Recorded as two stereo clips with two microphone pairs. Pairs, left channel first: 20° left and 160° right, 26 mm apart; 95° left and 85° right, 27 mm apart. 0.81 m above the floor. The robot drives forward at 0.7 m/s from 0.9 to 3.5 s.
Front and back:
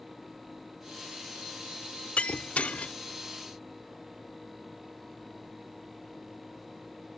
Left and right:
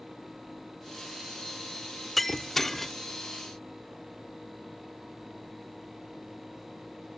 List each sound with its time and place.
2.2 s breaking glass: 15° left; by 2.9 s 25° left